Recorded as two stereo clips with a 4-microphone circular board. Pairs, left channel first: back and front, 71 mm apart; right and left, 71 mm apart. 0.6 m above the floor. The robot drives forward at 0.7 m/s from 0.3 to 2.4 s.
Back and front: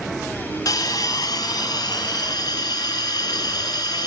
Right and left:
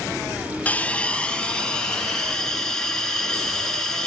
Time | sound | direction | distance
0.7 | a hiss | 155° right | 0.8 m